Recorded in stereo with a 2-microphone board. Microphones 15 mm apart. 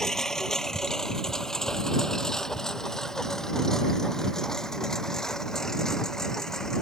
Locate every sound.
0.0 s a lawn mower: 40° left (ahead or behind)